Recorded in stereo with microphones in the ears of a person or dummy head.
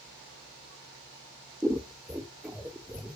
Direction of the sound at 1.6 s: 5° right (ahead or behind).